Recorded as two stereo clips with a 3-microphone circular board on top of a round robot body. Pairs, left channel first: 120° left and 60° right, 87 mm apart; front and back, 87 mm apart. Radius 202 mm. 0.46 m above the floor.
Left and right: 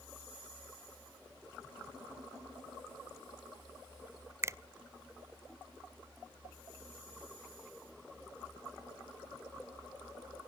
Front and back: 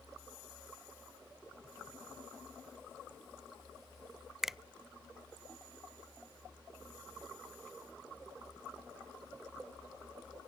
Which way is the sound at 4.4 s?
95° right.